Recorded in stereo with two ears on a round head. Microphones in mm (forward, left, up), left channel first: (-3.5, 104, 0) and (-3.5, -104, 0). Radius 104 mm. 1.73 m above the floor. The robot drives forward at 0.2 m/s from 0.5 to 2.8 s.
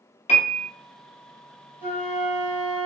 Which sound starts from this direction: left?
A piano, at 0.3 s.